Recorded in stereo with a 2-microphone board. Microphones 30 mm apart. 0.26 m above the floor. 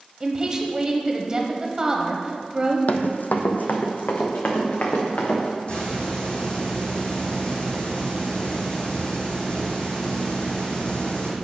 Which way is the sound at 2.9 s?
70° left (ahead or behind).